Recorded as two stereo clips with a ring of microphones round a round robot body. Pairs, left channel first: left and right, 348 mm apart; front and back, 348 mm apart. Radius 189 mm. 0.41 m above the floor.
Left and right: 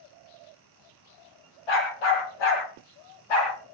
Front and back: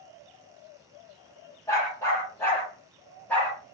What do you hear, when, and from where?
1.7 s a dog barking: 85° left, 6 m